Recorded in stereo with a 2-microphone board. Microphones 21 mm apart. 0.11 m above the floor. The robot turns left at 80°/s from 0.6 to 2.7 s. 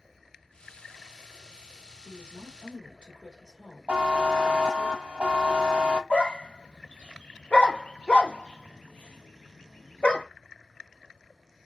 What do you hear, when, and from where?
2.0 s a woman speaking: 80° right, 2 m; by 4.9 s 130° right, 2 m
3.9 s a buzzer: 70° right (ahead or behind), 0.7 m
6.1 s a dog barking: 70° left (ahead or behind), 0.6 m